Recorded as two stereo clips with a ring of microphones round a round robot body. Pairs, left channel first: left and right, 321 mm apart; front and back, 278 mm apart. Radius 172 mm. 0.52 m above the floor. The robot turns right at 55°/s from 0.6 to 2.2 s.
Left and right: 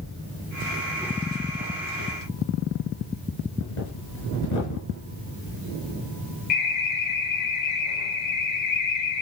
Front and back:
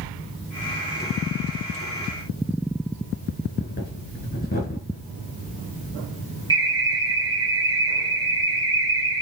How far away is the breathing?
About 3.5 m.